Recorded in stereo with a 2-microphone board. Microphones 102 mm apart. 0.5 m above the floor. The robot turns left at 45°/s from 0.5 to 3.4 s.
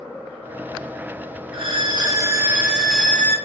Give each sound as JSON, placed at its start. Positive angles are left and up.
{"t": 1.5, "sound": "a violin", "azimuth_deg": -120, "distance_m": 0.6}